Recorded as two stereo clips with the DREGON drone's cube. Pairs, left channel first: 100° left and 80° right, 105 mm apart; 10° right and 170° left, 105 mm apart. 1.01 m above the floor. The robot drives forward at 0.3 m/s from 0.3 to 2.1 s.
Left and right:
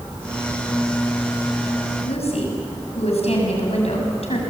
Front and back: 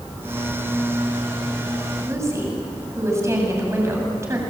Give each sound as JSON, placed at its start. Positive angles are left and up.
{"t": 2.1, "sound": "a woman speaking", "azimuth_deg": 105, "distance_m": 7.5}